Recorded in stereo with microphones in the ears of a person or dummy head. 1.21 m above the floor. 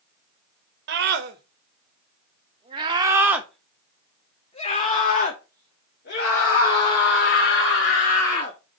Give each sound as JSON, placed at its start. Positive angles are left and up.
{"t": 0.9, "sound": "a scream", "side_deg": -60, "distance_m": 1.5}